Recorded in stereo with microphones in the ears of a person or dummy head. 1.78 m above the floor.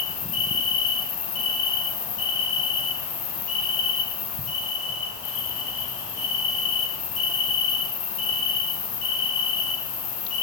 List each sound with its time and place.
0.0 s an insect: 35° left (ahead or behind), 2 m